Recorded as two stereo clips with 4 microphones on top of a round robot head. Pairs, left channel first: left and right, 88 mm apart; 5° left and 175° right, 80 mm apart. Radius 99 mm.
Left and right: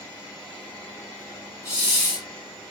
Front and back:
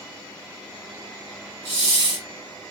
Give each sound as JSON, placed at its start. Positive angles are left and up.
{"t": 1.6, "sound": "a hiss", "azimuth_deg": -175, "distance_m": 0.9}